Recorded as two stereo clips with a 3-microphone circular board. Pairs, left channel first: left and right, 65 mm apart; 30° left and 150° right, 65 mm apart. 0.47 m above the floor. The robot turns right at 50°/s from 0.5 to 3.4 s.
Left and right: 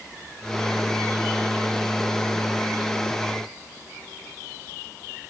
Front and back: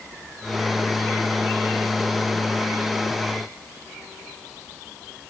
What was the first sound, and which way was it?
Only background noise.